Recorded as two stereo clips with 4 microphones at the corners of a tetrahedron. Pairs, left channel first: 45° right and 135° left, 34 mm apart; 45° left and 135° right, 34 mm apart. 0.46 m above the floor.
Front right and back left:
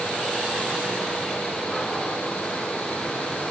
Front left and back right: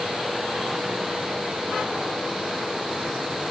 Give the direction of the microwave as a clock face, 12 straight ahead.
No microwave in this recording.